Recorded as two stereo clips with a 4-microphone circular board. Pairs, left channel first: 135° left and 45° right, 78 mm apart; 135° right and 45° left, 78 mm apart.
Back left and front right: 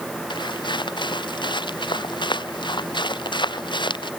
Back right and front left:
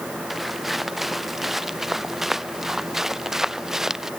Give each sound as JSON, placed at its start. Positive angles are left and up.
{"t": 0.3, "sound": "footsteps", "azimuth_deg": 135}